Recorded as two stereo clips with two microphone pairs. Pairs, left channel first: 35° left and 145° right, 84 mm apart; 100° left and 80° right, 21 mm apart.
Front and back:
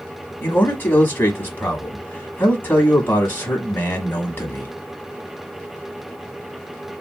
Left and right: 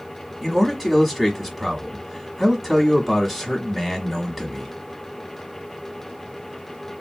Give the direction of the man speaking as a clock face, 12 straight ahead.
12 o'clock.